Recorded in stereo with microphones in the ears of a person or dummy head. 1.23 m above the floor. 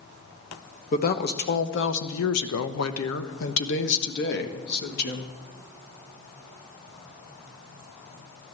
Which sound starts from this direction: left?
A woman speaking, at 0.9 s.